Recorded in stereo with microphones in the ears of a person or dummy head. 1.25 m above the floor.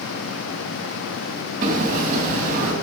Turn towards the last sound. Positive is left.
turn(degrees=-50)  # may be behind; listen again after turning